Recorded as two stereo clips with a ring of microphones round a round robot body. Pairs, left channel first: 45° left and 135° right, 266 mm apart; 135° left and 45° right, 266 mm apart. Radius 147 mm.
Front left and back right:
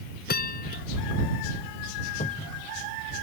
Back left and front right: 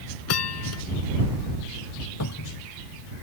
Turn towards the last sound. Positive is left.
turn(degrees=110)